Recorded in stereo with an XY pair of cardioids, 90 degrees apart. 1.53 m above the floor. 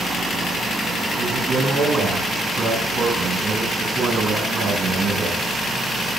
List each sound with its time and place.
1.2 s a man speaking: 60° right, 7.5 m